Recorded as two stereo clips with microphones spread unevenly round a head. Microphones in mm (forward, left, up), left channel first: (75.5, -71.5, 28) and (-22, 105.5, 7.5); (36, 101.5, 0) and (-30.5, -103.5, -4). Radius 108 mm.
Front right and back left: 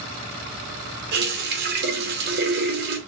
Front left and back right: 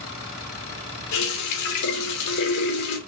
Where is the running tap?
80° left, 2.5 m.